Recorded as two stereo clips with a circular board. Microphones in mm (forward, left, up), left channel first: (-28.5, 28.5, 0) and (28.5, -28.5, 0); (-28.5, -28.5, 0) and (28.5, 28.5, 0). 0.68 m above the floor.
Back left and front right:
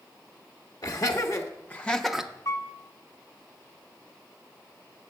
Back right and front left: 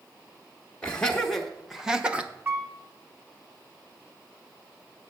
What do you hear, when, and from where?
0.8 s laughter: 150° left, 0.9 m; by 2.3 s 15° left, 0.6 m
2.5 s a piano: 105° left, 1.0 m